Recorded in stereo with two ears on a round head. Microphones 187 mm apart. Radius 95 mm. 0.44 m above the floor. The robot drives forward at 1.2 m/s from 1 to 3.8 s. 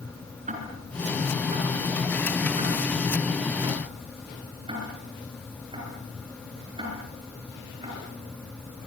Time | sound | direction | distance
0.5 | ticking | 35° right (ahead or behind) | 6.5 m